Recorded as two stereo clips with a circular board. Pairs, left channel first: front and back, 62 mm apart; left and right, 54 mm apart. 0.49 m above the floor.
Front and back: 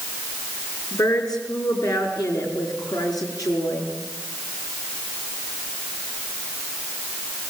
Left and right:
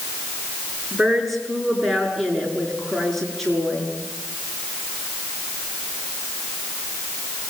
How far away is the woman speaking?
About 6.5 m.